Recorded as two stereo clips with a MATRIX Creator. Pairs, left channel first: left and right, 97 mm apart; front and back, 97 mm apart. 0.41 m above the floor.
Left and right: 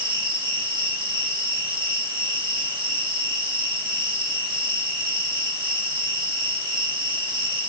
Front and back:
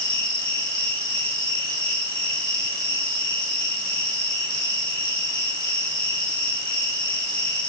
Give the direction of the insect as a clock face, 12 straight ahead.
4 o'clock.